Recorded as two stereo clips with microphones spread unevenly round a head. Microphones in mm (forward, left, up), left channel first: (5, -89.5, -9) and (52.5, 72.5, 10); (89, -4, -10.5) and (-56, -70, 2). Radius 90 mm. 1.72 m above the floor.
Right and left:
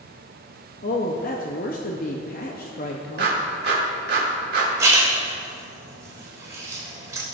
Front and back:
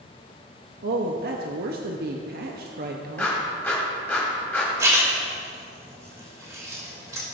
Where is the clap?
105° left, 2.5 m.